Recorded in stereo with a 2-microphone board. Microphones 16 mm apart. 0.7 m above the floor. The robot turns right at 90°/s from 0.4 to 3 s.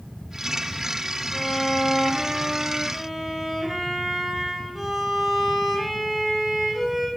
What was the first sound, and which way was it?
A violin, 165° right.